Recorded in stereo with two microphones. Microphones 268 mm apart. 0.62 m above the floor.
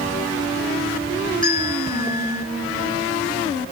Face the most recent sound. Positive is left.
turn(degrees=-85)